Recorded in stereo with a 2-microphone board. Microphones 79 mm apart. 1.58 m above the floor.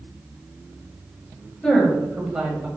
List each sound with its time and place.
1.6 s a woman speaking: 10° left (ahead or behind), 1.5 m; by 2.7 s 20° right (ahead or behind), 1.5 m